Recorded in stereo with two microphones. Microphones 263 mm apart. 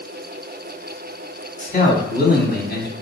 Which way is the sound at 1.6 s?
35° left (ahead or behind).